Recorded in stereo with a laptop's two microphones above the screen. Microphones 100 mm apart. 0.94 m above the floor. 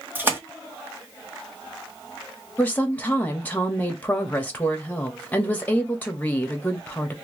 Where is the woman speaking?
15° left (ahead or behind), 1.3 m.